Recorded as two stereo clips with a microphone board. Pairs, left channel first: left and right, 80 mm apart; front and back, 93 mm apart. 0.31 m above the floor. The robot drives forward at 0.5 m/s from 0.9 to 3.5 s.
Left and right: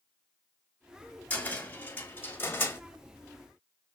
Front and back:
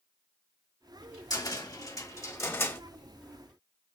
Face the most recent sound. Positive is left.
turn(degrees=75)